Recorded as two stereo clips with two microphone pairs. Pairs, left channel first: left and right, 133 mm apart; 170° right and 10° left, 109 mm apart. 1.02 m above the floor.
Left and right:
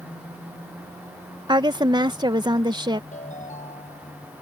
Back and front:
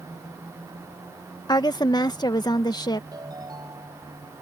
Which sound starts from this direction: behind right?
A woman speaking, at 1.5 s.